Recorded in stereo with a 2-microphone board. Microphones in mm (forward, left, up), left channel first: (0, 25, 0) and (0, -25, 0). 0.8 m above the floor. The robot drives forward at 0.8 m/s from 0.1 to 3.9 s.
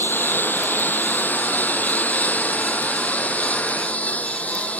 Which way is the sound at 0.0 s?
40° left (ahead or behind).